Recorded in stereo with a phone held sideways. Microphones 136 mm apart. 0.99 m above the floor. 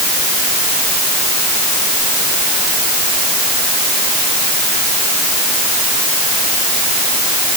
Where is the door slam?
I don't hear a door slam.